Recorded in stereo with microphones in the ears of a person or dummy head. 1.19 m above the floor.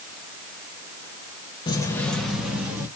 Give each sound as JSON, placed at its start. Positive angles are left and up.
{"t": 1.7, "sound": "keys jangling", "side_deg": 25, "distance_m": 0.8}